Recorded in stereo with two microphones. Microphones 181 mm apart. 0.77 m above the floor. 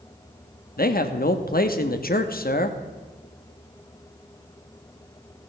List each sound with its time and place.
0.8 s a man speaking: 55° left (ahead or behind), 1.0 m